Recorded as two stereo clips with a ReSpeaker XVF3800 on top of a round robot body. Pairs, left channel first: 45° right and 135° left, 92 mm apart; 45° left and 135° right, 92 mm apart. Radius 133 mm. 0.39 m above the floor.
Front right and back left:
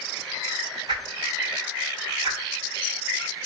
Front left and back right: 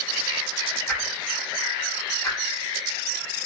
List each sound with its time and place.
0.9 s a whoosh: 110° left, 2.5 m